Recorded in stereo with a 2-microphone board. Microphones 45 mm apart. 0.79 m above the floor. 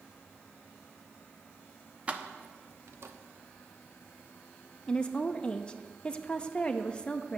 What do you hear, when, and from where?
2.1 s keys jangling: 30° right (ahead or behind), 0.6 m; by 3.1 s 75° right (ahead or behind), 0.6 m
4.9 s a woman speaking: 20° left (ahead or behind), 0.6 m